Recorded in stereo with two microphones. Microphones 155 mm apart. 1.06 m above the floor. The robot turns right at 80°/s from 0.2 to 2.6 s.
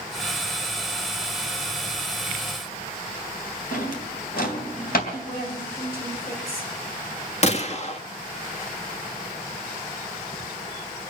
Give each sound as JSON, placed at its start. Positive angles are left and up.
{"t": 3.7, "sound": "a drawer", "side_deg": 75, "distance_m": 3.0}
{"t": 5.1, "sound": "a woman speaking", "side_deg": 75, "distance_m": 6.0}
{"t": 7.4, "sound": "a gunshot", "side_deg": 45, "distance_m": 1.4}